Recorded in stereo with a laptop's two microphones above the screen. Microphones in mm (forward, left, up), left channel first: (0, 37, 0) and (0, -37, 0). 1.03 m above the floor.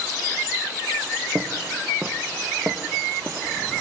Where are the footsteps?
25° right (ahead or behind), 1.3 m; by 3.5 s 30° right (ahead or behind), 2 m.